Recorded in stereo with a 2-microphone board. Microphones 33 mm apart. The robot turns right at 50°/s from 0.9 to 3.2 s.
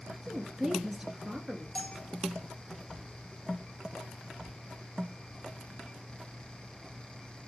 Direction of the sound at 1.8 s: 35° left (ahead or behind).